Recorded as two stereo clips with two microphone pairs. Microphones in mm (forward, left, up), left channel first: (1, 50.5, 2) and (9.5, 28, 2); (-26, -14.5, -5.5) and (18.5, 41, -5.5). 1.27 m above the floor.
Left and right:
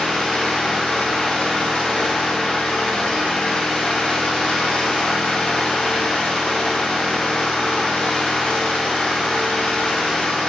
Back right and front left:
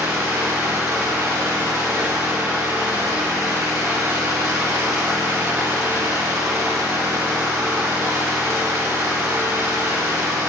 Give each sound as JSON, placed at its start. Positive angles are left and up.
{"t": 0.0, "sound": "an engine running", "azimuth_deg": 100, "distance_m": 2.5}